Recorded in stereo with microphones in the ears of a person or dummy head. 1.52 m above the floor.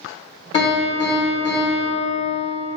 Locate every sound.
0.5 s a piano: 35° left (ahead or behind), 1.3 m